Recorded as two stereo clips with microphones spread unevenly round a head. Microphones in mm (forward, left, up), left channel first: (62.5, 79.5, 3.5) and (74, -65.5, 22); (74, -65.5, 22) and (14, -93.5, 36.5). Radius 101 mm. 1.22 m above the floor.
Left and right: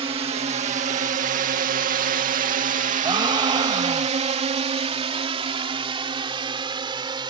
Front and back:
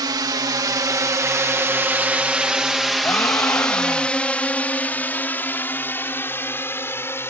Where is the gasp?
25° right.